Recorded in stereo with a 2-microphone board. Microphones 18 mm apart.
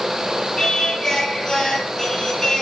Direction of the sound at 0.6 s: 20° left (ahead or behind).